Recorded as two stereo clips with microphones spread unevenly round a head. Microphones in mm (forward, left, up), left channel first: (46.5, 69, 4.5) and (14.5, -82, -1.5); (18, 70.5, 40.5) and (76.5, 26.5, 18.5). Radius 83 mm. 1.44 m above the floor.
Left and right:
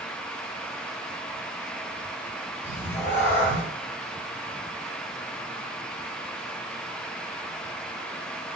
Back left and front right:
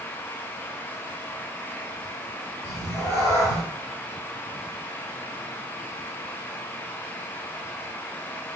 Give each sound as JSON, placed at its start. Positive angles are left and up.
{"t": 2.6, "sound": "a cat meowing", "azimuth_deg": 150, "distance_m": 1.7}